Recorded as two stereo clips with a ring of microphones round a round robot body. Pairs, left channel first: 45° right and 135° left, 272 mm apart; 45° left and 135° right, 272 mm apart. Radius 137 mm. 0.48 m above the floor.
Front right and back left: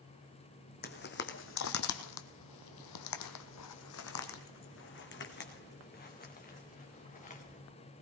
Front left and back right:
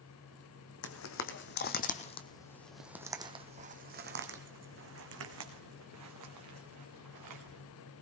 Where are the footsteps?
10° left, 1.3 m; by 7.6 s 110° right, 3 m.